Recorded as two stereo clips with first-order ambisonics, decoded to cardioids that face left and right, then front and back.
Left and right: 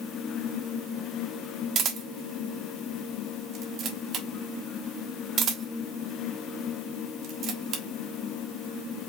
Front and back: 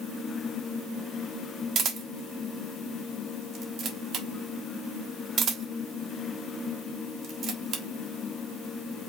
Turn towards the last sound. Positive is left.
turn(degrees=-135)